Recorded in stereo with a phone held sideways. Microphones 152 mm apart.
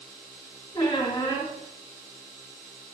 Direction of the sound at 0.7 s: 25° left (ahead or behind).